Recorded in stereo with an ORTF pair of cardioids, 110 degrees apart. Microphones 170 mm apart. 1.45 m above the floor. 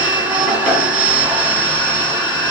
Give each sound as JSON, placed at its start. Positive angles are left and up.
{"t": 0.0, "sound": "a machine running", "azimuth_deg": -10, "distance_m": 0.9}